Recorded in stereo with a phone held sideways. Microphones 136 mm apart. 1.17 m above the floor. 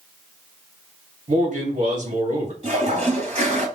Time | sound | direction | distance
1.3 | a man speaking | 60° right (ahead or behind) | 1.7 m
2.6 | a toilet flushing | 50° right (ahead or behind) | 2 m